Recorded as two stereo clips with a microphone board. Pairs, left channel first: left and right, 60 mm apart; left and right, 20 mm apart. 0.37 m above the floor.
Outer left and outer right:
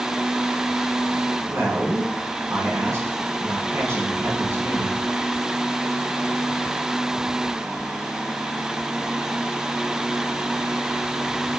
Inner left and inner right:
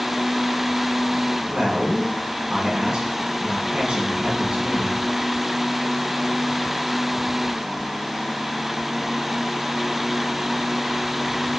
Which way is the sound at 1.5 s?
45° right (ahead or behind).